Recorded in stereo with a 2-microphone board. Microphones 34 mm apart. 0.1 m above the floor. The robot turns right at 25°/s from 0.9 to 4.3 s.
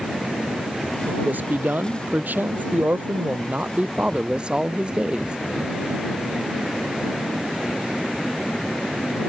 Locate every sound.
1.1 s a man speaking: 110° right; by 5.4 s 30° right